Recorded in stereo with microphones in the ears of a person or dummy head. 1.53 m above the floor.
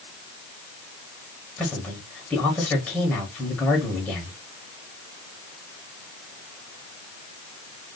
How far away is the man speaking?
About 1.1 m.